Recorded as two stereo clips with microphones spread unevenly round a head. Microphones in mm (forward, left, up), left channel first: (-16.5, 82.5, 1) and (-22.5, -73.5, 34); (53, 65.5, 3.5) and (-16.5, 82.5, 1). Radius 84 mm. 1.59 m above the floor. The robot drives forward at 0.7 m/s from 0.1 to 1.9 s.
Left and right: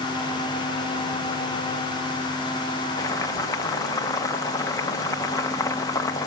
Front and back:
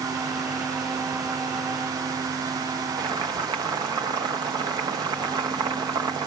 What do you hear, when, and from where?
3.0 s boiling: 160° left, 1.8 m